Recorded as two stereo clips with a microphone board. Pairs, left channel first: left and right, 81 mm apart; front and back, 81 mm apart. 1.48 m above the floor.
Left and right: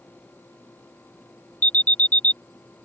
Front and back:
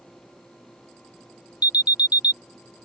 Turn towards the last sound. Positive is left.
turn(degrees=20)